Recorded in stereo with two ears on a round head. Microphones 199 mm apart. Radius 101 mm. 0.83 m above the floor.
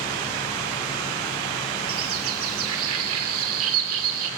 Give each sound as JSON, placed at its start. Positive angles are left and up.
{"t": 1.9, "sound": "a bird", "side_deg": -80, "distance_m": 0.8}